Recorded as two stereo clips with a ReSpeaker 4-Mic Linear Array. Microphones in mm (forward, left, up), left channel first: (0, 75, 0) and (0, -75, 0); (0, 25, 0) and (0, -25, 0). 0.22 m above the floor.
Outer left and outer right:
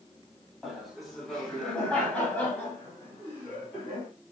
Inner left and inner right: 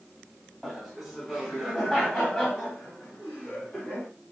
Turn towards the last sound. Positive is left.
turn(degrees=15)  # may be behind; listen again after turning